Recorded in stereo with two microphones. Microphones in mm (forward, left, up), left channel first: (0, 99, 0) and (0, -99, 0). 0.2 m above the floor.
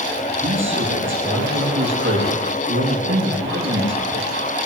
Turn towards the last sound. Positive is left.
turn(degrees=-80)